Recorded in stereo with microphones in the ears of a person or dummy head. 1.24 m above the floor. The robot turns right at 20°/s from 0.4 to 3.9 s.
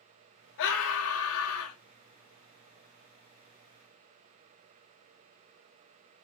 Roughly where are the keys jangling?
I don't hear keys jangling.